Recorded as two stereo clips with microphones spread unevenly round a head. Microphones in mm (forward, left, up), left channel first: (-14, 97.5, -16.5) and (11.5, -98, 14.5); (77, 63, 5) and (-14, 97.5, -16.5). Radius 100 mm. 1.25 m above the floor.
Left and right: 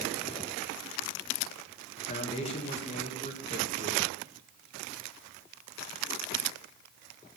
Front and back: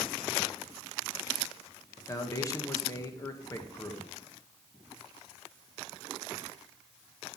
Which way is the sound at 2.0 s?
40° left.